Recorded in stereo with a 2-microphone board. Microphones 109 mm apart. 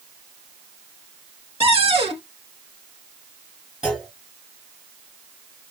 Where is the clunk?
5° right (ahead or behind), 3 m.